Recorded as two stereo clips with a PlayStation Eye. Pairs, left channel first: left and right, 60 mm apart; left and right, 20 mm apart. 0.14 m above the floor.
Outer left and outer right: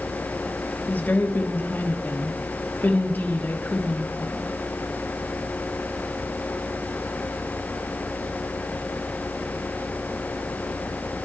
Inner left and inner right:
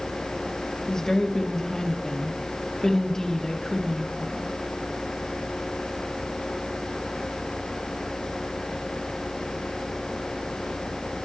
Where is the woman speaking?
30° left (ahead or behind), 3.5 m.